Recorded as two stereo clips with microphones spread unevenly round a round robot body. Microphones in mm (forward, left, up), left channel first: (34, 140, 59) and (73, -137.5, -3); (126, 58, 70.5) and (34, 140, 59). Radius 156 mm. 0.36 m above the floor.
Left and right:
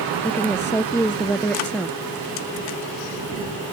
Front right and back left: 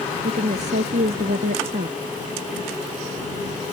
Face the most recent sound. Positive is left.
turn(degrees=-175)